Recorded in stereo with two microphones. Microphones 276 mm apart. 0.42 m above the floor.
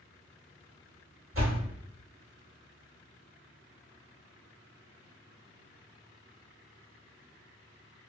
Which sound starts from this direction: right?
A door slam, at 1.3 s.